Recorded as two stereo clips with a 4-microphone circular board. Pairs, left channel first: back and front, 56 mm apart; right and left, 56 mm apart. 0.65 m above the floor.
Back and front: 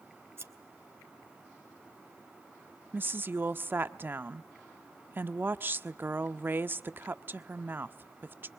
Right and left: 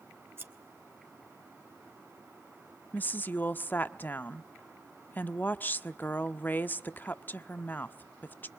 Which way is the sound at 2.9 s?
45° right.